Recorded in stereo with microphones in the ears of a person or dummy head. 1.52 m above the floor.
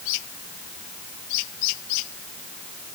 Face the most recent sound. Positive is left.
No sound to turn to.